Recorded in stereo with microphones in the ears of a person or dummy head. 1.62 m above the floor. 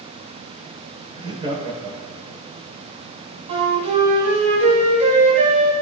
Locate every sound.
1.1 s laughter: 25° right (ahead or behind), 7 m; by 2.4 s 30° right (ahead or behind), 8 m
3.5 s a flute: 35° right (ahead or behind), 4.5 m